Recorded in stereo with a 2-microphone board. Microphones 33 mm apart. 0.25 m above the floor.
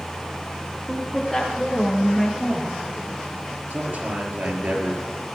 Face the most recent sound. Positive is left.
turn(degrees=-65)  # may be behind; listen again after turning